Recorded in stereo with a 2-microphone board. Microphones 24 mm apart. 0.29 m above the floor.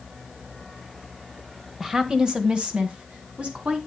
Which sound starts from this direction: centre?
A woman speaking, at 1.8 s.